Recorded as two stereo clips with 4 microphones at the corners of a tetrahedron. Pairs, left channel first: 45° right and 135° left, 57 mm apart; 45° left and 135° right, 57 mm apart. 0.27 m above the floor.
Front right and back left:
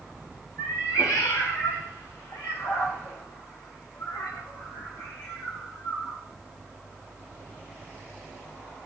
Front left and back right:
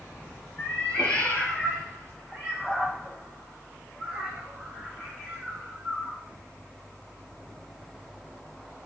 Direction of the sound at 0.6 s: 15° right.